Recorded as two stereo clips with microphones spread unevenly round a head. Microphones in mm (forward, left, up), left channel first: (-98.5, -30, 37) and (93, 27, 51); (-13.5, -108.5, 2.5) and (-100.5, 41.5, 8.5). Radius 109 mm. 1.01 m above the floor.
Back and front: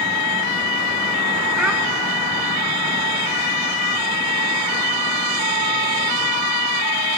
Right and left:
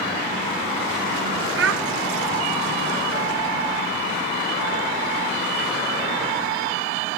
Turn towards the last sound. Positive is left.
turn(degrees=100)